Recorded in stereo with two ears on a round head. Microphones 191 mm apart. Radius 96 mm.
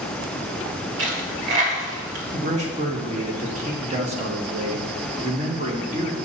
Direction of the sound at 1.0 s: 60° right (ahead or behind).